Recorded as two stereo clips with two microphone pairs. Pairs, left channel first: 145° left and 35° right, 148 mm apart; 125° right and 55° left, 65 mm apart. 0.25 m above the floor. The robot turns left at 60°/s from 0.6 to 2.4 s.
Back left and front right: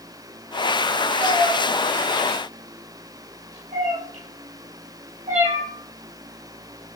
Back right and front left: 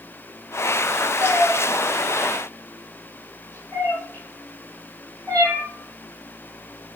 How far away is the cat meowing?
About 4.5 m.